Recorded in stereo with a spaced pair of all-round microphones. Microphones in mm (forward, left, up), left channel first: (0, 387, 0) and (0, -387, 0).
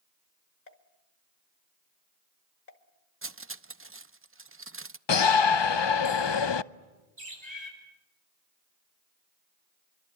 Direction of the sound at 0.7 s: 55° left (ahead or behind).